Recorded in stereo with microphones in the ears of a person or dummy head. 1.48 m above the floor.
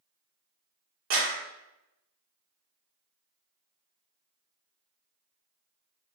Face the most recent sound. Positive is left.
turn(degrees=-70)  # may be behind; listen again after turning